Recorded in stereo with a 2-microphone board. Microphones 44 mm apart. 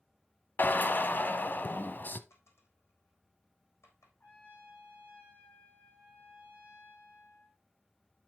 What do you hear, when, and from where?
0.6 s a drill: 45° left (ahead or behind), 0.8 m
2.3 s a dropped coin: 80° left, 3.5 m
4.2 s a trumpet: 40° left (ahead or behind), 4.5 m